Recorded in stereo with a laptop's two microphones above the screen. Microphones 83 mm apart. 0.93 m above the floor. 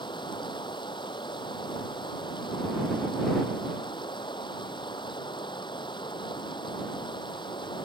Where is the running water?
70° left (ahead or behind).